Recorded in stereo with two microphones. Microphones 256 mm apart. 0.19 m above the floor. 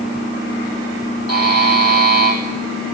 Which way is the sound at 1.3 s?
70° right (ahead or behind).